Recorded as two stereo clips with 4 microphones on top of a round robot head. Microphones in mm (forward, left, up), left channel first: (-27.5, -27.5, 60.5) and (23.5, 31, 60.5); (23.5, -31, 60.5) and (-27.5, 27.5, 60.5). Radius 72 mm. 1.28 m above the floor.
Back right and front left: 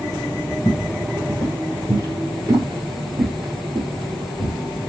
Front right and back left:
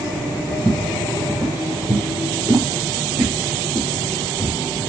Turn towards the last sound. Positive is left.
turn(degrees=70)